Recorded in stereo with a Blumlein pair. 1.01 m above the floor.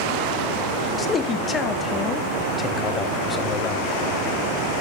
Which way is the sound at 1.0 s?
20° left.